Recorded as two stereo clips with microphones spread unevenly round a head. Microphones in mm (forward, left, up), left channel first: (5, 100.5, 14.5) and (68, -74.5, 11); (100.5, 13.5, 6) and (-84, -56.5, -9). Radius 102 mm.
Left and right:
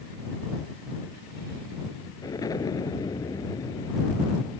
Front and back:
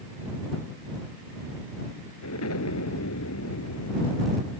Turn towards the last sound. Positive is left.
turn(degrees=40)